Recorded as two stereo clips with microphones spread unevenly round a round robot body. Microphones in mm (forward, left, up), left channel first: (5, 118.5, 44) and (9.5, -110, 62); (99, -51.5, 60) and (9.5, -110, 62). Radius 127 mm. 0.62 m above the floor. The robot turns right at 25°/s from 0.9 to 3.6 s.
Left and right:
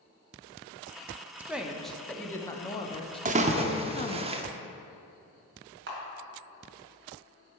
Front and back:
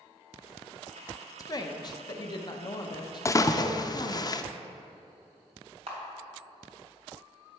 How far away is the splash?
About 0.6 m.